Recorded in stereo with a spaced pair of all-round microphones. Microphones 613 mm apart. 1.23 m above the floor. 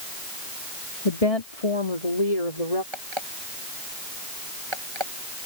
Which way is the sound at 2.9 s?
45° right (ahead or behind).